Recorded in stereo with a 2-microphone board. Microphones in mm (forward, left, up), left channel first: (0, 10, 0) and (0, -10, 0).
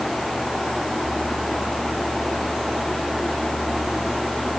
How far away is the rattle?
I don't hear a rattle.